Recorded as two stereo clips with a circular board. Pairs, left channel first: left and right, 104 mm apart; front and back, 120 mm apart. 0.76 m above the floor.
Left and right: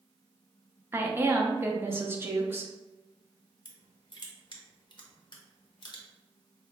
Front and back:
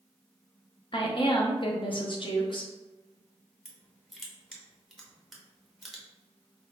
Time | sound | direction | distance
0.9 | a woman speaking | 30° right | 0.7 m
3.6 | crushing | 90° left | 0.7 m